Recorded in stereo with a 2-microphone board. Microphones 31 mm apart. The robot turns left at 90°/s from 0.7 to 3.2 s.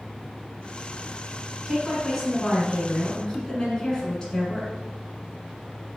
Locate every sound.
1.7 s a woman speaking: 5° right (ahead or behind), 1.2 m; by 4.7 s 20° left (ahead or behind), 1.2 m